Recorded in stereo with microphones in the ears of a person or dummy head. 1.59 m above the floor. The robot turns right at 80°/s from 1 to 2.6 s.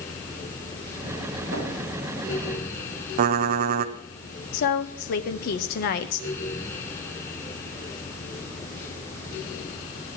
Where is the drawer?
75° right (ahead or behind), 8 m; by 1.6 s 70° right (ahead or behind), 8 m.